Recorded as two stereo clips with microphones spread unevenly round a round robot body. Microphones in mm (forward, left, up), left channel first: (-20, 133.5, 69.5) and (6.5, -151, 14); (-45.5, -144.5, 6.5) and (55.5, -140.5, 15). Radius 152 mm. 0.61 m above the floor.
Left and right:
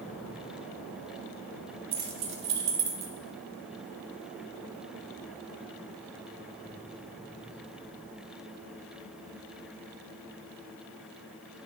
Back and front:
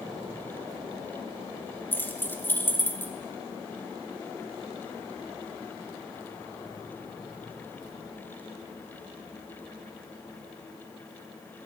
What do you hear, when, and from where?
1.9 s keys jangling: 105° right, 1.2 m